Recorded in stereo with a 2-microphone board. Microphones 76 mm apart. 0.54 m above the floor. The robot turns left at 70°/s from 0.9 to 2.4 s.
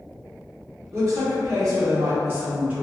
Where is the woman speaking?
50° right, 1.0 m; by 2.8 s 155° right, 1.0 m.